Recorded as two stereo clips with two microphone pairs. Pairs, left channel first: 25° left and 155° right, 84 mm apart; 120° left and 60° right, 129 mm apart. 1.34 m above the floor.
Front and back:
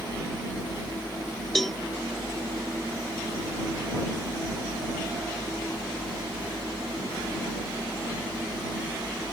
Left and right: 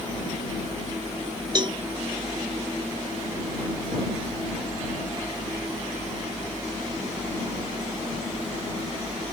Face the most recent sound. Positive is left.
turn(degrees=-60)